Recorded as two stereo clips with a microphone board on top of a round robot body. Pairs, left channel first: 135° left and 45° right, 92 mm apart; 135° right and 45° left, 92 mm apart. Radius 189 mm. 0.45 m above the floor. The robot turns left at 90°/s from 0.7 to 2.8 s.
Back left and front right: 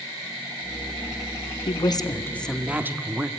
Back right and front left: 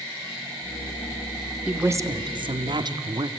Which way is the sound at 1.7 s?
125° left.